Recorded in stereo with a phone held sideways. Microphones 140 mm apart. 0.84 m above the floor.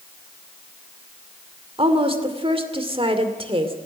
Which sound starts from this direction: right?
A woman speaking, at 1.8 s.